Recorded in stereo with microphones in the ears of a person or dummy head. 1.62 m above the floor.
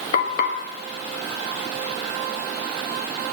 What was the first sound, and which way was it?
Frying, 70° left (ahead or behind).